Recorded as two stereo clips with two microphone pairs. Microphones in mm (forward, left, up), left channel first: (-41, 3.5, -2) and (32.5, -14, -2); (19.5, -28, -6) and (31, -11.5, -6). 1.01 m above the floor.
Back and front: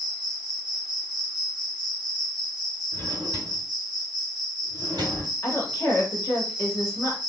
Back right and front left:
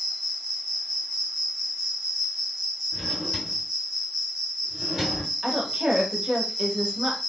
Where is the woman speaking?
125° left, 1.5 m.